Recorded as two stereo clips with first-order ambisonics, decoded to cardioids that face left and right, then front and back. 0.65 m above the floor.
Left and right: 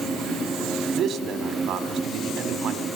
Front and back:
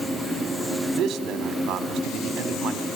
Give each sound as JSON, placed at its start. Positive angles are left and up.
{"t": 0.9, "sound": "a man speaking", "azimuth_deg": -135, "distance_m": 1.5}